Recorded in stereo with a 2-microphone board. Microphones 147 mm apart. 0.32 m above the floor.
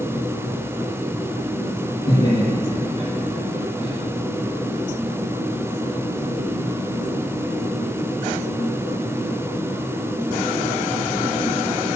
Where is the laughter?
35° left (ahead or behind), 4.5 m.